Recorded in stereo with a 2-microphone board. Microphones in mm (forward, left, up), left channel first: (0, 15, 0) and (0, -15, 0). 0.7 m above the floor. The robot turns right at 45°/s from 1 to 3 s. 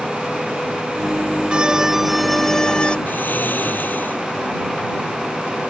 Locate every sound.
1.5 s a violin: 30° right; by 3.0 s 35° left
3.1 s snoring: 80° left